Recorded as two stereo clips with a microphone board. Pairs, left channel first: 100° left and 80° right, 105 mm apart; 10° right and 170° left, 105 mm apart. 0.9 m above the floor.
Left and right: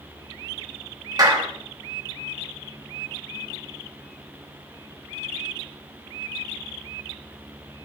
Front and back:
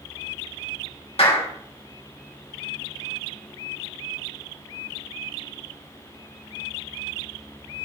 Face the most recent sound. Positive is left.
turn(degrees=-30)